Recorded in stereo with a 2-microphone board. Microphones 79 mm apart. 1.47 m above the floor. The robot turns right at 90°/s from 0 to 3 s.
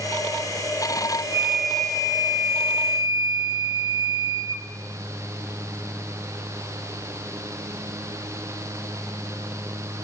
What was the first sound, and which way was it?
A flute, 25° right.